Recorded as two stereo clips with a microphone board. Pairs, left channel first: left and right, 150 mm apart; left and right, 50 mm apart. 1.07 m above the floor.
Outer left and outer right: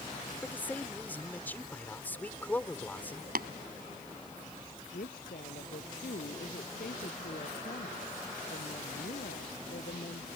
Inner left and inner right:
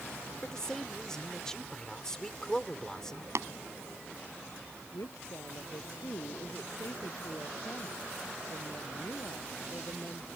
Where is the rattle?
No rattle in this recording.